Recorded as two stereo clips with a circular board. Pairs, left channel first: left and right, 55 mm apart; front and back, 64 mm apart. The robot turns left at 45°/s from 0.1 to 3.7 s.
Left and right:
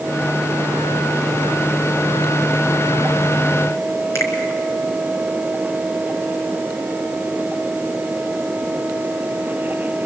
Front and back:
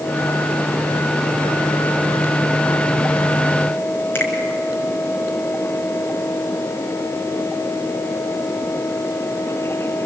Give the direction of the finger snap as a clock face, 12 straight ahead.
10 o'clock.